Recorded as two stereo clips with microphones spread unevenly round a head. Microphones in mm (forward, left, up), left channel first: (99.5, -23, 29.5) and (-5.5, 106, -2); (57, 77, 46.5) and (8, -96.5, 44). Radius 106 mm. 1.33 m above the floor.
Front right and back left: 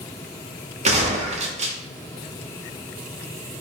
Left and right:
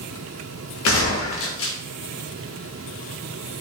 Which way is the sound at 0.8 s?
75° left.